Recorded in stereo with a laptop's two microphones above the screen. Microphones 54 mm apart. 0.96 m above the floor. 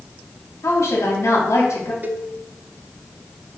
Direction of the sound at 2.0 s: 35° right (ahead or behind).